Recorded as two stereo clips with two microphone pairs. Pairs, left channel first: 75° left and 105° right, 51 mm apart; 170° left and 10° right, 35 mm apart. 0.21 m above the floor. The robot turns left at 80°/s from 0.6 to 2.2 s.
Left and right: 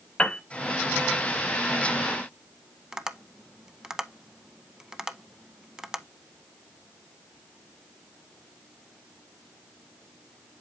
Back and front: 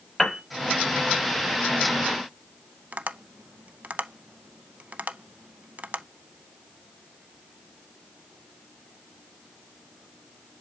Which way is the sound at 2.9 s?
30° right.